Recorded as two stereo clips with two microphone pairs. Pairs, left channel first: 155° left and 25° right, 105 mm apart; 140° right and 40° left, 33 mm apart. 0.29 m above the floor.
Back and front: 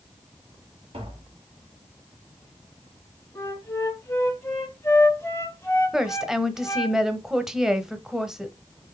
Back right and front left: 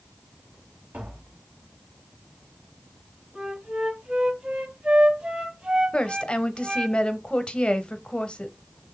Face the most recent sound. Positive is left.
turn(degrees=-105)